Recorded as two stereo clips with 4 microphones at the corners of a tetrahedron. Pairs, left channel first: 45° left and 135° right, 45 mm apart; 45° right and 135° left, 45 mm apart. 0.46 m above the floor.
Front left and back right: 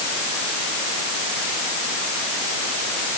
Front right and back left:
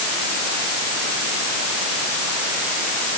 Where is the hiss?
No hiss in this recording.